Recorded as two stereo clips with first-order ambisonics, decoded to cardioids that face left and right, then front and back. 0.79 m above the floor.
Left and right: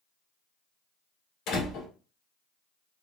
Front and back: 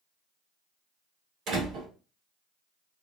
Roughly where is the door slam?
Behind left.